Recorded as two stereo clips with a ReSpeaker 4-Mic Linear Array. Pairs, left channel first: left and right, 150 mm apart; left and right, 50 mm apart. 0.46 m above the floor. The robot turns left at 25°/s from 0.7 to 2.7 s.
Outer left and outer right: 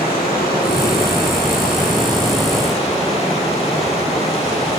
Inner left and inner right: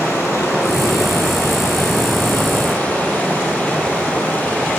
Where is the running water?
90° left, 7.5 m; by 4.8 s 40° left, 7.5 m.